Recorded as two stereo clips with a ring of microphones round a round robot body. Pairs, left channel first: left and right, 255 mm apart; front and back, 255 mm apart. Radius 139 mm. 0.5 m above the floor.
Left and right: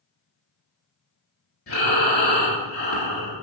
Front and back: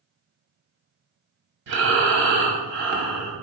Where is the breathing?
150° left, 1.1 m.